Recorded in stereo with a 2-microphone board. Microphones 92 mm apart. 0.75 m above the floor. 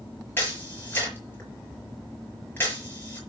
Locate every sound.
0.4 s a camera shutter: 20° left (ahead or behind), 5 m